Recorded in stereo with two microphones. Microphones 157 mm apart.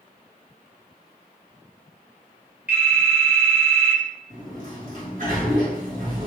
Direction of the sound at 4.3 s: 65° right (ahead or behind).